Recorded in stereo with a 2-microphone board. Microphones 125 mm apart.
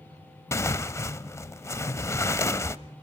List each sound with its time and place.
0.5 s tearing paper: 20° left (ahead or behind), 0.6 m